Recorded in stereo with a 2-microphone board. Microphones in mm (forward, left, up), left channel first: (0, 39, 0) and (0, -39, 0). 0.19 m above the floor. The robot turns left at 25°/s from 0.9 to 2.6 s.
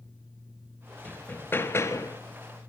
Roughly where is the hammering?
Centre.